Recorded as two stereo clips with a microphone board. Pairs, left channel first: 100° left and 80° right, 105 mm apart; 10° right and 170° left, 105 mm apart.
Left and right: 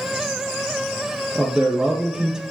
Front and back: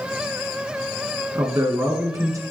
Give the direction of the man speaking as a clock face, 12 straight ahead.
5 o'clock.